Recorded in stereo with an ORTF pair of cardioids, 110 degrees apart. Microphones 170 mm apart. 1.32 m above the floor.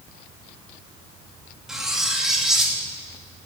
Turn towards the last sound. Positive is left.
turn(degrees=-5)